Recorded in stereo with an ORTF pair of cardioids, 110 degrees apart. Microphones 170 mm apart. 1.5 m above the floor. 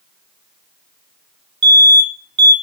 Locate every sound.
1.6 s an alarm: 30° right, 1.1 m